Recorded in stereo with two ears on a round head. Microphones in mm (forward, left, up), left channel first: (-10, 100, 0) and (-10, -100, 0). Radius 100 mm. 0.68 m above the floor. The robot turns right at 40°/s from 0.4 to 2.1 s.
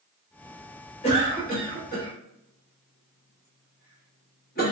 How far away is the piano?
I don't hear a piano.